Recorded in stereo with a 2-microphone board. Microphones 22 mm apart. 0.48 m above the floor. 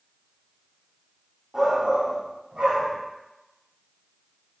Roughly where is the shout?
Centre.